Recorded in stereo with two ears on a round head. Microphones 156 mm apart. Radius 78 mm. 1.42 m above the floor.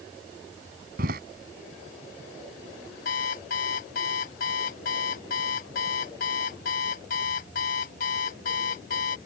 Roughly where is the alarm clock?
Left.